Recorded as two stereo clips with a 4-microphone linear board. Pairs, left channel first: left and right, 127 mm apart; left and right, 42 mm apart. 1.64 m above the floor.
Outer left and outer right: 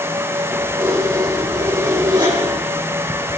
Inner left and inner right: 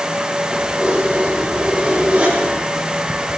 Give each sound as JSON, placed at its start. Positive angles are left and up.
{"t": 0.5, "sound": "keys jangling", "side_deg": -35, "distance_m": 5.5}